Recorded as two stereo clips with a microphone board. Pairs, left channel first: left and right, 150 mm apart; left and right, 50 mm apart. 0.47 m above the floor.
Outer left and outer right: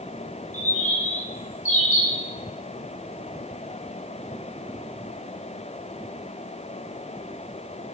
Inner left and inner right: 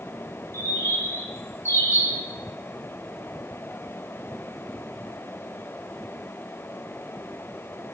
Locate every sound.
0.5 s a bird: 55° left (ahead or behind), 1.9 m